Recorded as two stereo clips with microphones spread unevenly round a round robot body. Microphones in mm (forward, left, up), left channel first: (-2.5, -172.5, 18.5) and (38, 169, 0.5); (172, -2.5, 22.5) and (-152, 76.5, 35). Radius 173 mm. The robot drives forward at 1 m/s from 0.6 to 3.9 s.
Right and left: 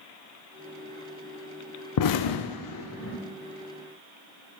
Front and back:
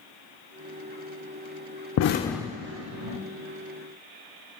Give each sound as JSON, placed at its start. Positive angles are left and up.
{"t": 2.0, "sound": "an explosion", "azimuth_deg": -55, "distance_m": 0.6}